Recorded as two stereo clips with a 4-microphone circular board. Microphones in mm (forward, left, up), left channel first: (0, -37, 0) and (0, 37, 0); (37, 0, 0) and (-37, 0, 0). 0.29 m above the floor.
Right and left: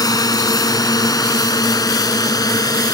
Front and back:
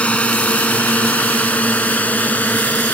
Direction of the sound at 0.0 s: 70° right.